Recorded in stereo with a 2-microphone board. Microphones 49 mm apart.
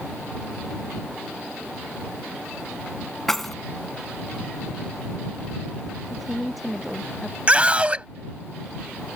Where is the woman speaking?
Centre (ahead or behind).